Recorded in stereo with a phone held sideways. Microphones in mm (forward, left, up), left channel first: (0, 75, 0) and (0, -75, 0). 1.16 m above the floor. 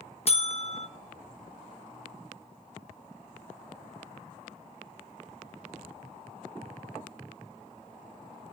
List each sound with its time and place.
0.3 s a buzzer: 45° left (ahead or behind), 1.2 m